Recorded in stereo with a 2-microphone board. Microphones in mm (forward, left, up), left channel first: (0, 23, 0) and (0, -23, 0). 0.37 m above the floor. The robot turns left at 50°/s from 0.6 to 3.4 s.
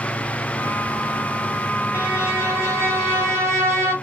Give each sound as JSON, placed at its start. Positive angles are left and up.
{"t": 1.9, "sound": "a violin", "azimuth_deg": -40, "distance_m": 1.7}